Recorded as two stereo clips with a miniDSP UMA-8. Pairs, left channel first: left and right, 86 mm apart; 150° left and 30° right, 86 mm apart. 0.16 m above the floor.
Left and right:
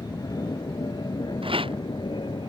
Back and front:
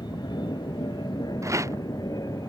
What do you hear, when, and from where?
0.0 s an aircraft: 130° left; by 2.5 s 110° left
1.4 s a rattle: 85° right